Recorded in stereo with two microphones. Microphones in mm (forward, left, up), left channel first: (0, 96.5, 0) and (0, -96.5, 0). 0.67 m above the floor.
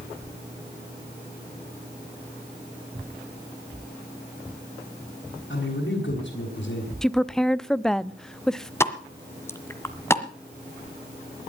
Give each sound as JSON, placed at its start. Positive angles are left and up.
{"t": 5.5, "sound": "a man speaking", "side_deg": 70, "distance_m": 6.5}
{"t": 7.0, "sound": "a woman speaking", "side_deg": 5, "distance_m": 0.6}
{"t": 8.8, "sound": "a pop", "side_deg": 15, "distance_m": 1.4}